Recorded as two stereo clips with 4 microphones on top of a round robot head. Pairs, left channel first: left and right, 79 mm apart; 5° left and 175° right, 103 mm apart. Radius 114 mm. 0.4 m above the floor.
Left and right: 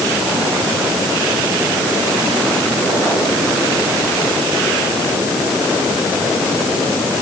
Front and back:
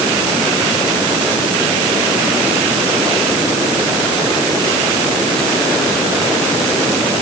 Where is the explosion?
I don't hear an explosion.